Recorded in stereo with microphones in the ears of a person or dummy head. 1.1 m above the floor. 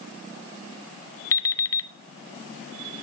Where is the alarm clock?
15° left (ahead or behind), 0.5 m.